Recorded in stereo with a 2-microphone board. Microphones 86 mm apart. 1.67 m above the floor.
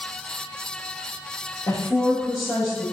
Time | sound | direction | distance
1.7 | a woman speaking | 45° left (ahead or behind) | 0.7 m